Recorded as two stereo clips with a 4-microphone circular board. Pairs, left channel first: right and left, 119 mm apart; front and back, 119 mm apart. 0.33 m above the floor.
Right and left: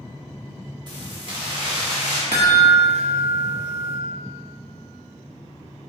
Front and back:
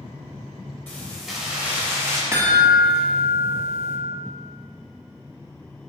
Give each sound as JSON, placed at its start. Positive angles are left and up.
{"t": 0.9, "sound": "keys jangling", "azimuth_deg": 65, "distance_m": 1.1}
{"t": 2.3, "sound": "a chime", "azimuth_deg": 115, "distance_m": 1.0}